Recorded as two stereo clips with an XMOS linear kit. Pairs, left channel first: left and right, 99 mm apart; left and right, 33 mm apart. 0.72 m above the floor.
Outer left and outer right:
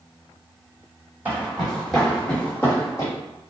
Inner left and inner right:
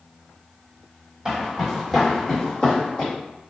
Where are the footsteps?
15° right (ahead or behind), 1.3 m; by 3.1 s 35° left (ahead or behind), 1.5 m.